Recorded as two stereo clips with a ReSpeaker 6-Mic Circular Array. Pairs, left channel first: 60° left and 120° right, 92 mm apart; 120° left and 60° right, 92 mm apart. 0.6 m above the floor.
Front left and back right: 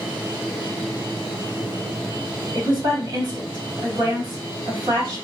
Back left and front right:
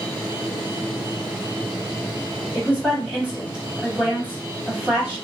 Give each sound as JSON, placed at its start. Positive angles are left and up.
{"t": 2.5, "sound": "a woman speaking", "azimuth_deg": -135, "distance_m": 1.6}